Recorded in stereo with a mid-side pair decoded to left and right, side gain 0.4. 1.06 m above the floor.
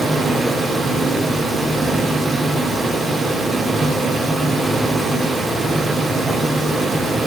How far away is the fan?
About 3 m.